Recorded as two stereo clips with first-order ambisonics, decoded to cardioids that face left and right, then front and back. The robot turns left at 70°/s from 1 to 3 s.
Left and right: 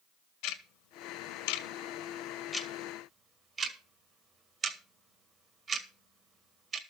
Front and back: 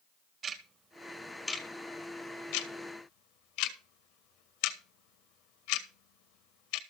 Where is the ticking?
120° left, 1.8 m; by 6.8 s 20° right, 1.8 m.